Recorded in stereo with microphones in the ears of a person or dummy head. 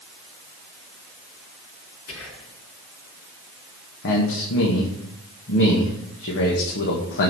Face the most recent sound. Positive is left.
turn(degrees=60)  # may be behind; listen again after turning